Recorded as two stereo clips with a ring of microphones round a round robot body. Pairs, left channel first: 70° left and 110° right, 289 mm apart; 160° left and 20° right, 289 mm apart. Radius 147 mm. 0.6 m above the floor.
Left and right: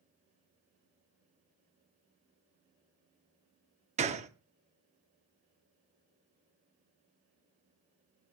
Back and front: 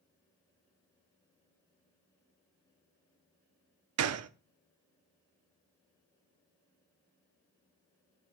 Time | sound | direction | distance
4.0 | a gunshot | 50° right | 0.6 m